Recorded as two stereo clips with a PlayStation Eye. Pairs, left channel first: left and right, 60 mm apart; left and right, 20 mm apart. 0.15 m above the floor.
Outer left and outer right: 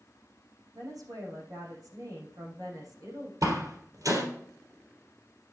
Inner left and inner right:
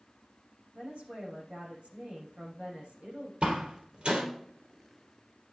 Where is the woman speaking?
75° right (ahead or behind), 6 m.